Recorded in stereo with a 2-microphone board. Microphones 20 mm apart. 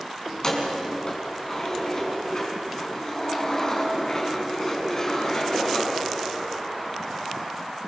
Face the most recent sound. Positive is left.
turn(degrees=25)  # may be behind; listen again after turning